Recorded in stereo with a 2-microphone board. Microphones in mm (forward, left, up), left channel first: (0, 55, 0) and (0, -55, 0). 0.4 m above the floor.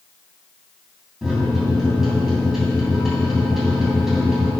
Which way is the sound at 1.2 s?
5° right (ahead or behind).